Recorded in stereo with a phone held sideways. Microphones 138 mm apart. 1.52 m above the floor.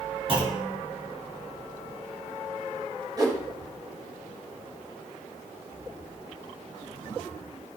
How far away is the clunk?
About 3 m.